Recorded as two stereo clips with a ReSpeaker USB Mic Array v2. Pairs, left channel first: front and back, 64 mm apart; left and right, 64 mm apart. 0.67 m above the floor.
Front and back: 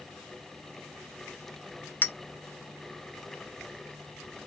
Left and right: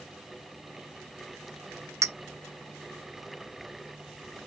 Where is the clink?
60° right, 0.5 m.